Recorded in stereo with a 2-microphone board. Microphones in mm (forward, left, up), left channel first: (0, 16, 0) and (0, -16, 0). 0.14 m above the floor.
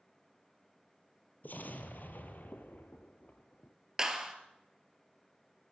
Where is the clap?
20° right (ahead or behind), 2 m.